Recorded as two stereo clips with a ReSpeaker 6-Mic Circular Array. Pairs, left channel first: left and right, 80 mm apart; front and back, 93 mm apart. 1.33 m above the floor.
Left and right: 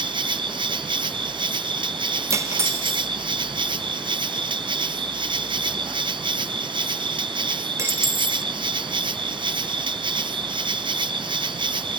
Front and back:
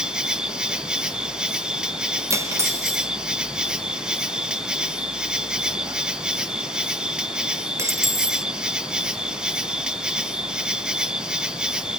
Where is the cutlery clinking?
130° right, 0.7 m.